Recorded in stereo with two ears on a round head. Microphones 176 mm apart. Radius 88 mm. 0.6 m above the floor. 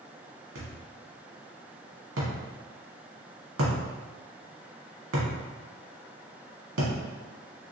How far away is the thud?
About 1.5 m.